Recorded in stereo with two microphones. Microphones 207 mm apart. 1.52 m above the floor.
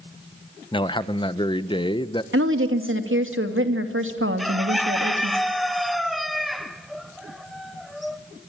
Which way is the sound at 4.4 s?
Centre (ahead or behind).